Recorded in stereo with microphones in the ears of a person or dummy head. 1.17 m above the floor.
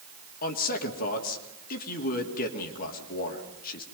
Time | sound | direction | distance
0.4 | a man speaking | 50° left (ahead or behind) | 2.5 m